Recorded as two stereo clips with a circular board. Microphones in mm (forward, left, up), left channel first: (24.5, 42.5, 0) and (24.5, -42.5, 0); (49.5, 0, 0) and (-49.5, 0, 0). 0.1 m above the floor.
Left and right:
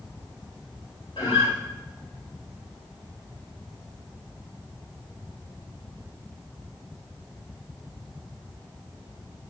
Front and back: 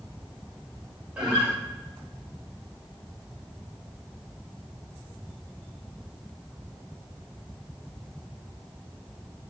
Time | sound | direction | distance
1.2 | a guitar | 100° left | 5 m